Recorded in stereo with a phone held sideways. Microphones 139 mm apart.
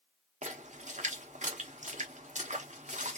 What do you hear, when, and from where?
0.4 s a splash: 65° right (ahead or behind), 1.0 m